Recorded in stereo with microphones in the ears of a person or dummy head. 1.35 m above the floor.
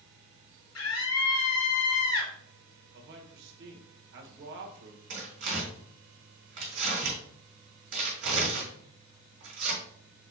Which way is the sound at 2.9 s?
60° right (ahead or behind).